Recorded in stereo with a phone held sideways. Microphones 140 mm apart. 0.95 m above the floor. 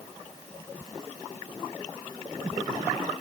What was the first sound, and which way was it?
Only background noise.